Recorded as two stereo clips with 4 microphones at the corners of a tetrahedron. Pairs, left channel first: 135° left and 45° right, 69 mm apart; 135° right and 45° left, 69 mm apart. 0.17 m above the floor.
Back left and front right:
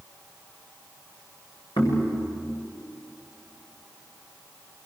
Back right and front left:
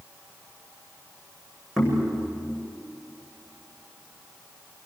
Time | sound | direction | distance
1.8 | knocking | 130° left | 9 m